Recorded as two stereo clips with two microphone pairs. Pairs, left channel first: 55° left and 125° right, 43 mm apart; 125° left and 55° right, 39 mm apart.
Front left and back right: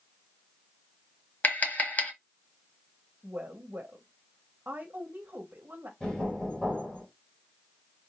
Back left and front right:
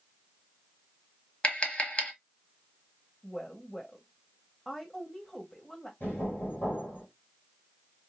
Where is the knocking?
125° left, 3 m.